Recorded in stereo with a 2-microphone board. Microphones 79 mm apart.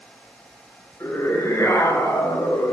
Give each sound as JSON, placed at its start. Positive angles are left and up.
{"t": 1.0, "sound": "a scream", "side_deg": 35, "distance_m": 7.5}